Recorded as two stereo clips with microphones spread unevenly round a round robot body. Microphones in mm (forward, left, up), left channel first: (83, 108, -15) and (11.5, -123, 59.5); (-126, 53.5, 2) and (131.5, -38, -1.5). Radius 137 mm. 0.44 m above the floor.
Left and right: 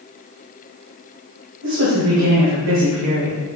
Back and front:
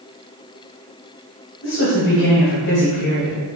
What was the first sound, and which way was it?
A woman speaking, 160° right.